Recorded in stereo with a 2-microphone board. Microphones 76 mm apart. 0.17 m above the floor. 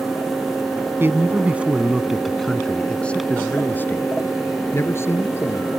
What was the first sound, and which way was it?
A man speaking, 30° right (ahead or behind).